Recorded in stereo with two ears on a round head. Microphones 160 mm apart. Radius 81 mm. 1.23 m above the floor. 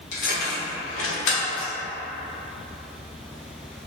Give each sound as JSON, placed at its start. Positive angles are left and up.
{"t": 0.1, "sound": "keys jangling", "side_deg": 45, "distance_m": 1.0}